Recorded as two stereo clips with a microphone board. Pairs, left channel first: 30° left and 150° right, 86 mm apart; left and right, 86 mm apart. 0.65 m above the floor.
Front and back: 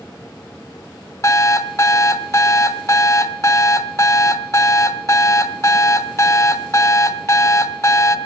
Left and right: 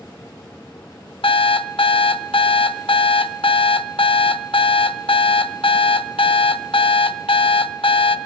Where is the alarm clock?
85° left, 0.7 m.